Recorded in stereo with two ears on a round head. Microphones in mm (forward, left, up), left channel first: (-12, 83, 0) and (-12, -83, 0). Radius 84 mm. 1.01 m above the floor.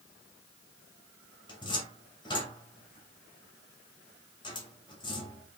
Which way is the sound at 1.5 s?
25° left (ahead or behind).